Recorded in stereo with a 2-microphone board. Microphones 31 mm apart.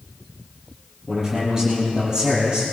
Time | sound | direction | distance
1.1 | a man speaking | 20° right (ahead or behind) | 7 m